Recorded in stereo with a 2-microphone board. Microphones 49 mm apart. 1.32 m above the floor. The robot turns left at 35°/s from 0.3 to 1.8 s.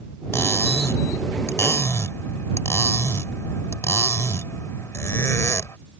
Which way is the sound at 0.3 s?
120° left.